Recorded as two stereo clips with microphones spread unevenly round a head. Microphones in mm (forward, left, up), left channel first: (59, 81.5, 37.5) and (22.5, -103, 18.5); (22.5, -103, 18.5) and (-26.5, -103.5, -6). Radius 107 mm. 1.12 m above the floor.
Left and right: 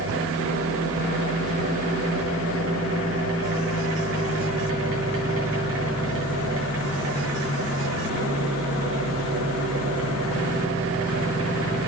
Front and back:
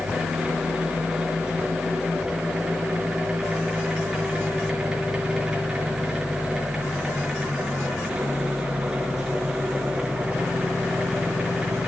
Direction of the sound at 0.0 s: 100° right.